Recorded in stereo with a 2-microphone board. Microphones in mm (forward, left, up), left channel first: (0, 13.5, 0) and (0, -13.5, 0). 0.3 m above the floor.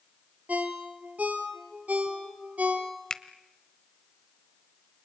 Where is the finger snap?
25° left (ahead or behind), 1.0 m.